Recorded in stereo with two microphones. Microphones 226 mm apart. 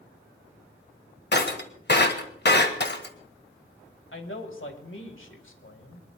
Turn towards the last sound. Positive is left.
turn(degrees=65)  # may be behind; listen again after turning